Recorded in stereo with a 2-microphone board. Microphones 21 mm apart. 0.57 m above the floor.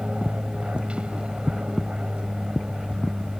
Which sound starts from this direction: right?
An aircraft, at 0.0 s.